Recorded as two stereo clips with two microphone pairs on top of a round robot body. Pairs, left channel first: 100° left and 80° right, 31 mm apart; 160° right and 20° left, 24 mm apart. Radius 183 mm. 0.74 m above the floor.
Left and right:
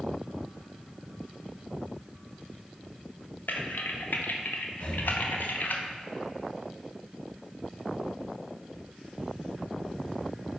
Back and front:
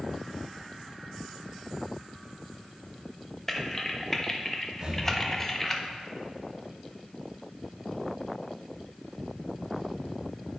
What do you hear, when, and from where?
3.5 s typing on a keyboard: 120° left, 0.7 m
4.8 s breathing: 55° left, 1.2 m